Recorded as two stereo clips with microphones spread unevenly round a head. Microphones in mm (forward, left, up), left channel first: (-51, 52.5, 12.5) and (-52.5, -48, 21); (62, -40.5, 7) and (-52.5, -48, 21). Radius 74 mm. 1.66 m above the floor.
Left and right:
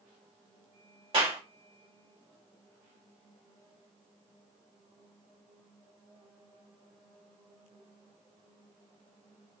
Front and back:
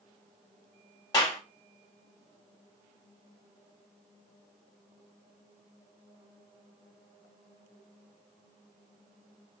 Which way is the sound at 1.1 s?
50° right.